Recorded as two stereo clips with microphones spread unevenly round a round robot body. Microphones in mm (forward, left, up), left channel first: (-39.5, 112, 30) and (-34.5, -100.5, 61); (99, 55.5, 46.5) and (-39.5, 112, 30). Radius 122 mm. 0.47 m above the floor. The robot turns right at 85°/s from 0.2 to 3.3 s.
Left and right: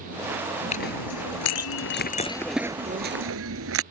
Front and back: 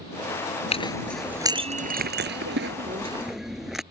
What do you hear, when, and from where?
0.7 s a clink: 25° left; by 3.8 s 115° right